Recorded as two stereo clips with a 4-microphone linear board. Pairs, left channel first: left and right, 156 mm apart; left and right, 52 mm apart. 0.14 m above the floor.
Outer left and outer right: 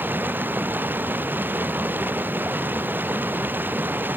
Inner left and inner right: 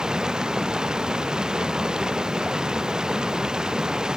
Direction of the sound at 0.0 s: 10° right (ahead or behind).